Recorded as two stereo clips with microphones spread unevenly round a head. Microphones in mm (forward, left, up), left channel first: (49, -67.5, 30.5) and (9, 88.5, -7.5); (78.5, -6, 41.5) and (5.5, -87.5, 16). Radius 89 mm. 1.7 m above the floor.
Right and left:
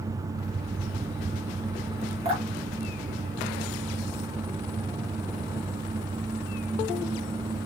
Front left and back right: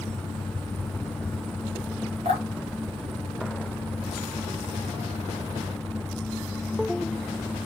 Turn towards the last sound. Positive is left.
turn(degrees=165)